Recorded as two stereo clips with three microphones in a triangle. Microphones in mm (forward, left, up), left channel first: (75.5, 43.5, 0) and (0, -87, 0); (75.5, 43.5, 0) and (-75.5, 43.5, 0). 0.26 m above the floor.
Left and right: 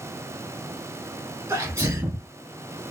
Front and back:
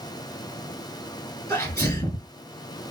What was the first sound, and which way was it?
A sneeze, 65° right.